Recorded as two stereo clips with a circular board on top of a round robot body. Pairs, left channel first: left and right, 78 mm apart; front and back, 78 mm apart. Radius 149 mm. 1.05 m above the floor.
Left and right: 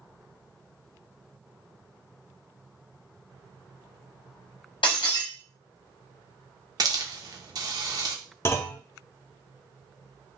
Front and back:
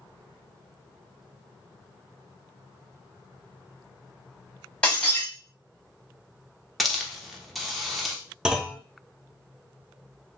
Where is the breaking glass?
75° left, 0.7 m.